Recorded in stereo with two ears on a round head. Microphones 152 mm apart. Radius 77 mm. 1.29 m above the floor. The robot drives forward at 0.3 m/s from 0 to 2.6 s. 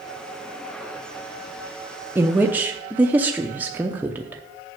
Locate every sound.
2.1 s a woman speaking: 15° right (ahead or behind), 0.7 m; by 4.4 s 10° right (ahead or behind), 0.8 m